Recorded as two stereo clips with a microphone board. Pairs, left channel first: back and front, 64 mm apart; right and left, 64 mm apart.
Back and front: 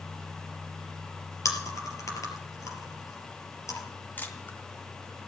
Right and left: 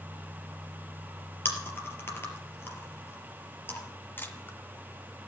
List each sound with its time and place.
1.4 s chewing: 145° right, 3.5 m
4.2 s a camera shutter: 130° right, 2 m